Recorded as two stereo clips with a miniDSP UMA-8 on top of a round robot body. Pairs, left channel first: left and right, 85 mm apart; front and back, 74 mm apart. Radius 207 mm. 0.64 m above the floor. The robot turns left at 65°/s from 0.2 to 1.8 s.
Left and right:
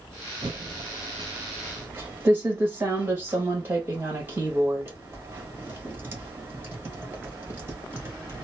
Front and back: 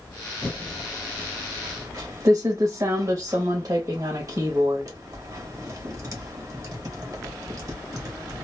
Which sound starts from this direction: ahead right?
Typing on a keyboard, at 0.4 s.